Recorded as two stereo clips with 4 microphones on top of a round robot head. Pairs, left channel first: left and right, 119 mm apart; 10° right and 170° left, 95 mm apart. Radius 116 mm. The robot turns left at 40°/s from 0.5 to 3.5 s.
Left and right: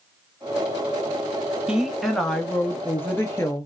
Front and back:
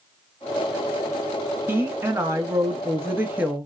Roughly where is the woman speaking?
Behind.